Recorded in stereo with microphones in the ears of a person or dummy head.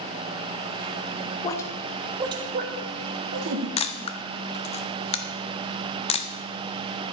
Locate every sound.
1.4 s a woman speaking: 25° left (ahead or behind), 1.1 m; by 3.7 s 70° right (ahead or behind), 1.8 m
3.8 s a camera shutter: 30° left (ahead or behind), 0.6 m